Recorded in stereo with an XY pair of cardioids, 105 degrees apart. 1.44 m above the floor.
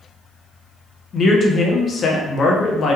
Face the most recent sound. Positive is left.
turn(degrees=50)